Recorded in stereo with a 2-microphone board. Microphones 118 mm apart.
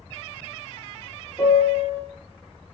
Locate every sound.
1.4 s a piano: 5° left (ahead or behind), 0.8 m